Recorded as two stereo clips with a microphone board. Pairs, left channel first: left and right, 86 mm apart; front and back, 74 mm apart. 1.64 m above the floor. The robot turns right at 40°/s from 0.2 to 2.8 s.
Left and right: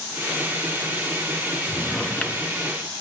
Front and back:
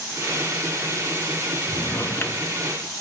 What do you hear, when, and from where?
1.7 s a drawer: 5° left, 1.1 m; by 2.5 s 40° left, 1.1 m